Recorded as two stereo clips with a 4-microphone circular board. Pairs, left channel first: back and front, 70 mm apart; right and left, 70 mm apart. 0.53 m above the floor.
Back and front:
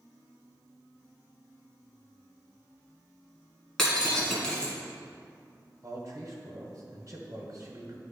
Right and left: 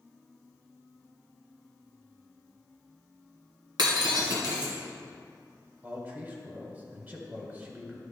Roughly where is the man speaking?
Ahead left.